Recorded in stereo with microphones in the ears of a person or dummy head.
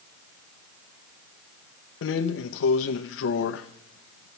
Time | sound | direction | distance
2.0 | a drawer | 70° left (ahead or behind) | 0.6 m